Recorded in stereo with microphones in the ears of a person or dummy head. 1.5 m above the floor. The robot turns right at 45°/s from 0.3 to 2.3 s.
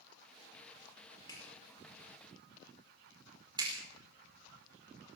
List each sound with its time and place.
1.3 s a clap: 25° left (ahead or behind), 4.5 m; by 3.7 s 25° right (ahead or behind), 4.5 m